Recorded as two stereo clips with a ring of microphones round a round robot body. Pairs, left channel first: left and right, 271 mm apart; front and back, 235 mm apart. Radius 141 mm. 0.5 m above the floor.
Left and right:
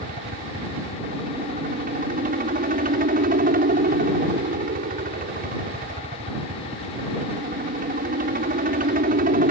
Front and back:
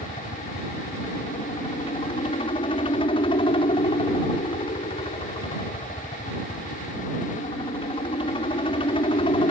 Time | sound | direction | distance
0.0 | a helicopter | 55° right | ?